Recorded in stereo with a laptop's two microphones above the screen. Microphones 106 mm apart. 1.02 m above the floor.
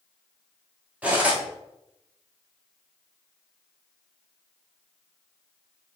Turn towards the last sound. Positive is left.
turn(degrees=-10)  # may be behind; listen again after turning